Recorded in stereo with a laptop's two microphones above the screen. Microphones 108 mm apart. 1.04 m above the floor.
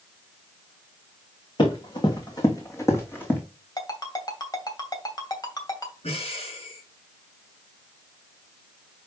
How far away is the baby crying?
No baby crying in this recording.